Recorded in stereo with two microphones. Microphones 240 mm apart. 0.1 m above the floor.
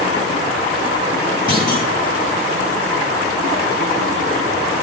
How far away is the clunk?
About 3 m.